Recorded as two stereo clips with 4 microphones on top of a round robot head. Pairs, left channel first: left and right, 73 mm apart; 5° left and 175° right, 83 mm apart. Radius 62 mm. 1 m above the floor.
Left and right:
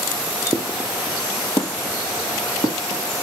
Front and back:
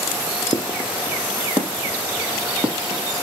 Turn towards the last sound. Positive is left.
turn(degrees=105)